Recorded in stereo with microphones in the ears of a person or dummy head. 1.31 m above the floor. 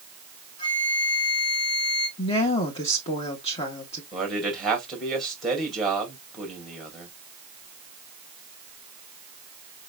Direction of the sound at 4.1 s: 5° right (ahead or behind).